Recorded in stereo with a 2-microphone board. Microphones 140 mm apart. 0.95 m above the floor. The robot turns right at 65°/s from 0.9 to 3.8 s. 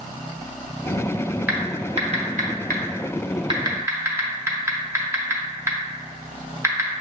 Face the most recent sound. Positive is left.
turn(degrees=-20)  # may be behind; listen again after turning